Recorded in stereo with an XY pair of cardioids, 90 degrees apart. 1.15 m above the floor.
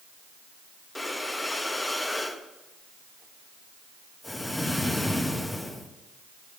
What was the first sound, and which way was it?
Breathing, 15° left.